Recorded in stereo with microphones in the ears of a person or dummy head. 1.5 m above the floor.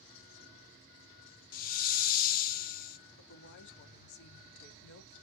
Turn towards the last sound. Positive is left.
turn(degrees=65)  # may be behind; listen again after turning